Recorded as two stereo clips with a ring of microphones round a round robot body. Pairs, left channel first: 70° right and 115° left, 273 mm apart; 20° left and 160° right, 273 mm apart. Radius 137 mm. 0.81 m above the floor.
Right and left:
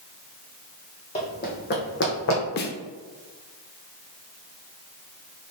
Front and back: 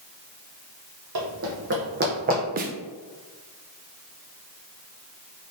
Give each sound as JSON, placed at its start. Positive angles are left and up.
{"t": 1.1, "sound": "running footsteps", "azimuth_deg": -130, "distance_m": 1.5}
{"t": 2.6, "sound": "a snare drum", "azimuth_deg": -110, "distance_m": 0.5}